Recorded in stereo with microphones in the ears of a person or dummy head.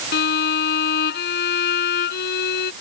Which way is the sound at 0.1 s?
50° left (ahead or behind).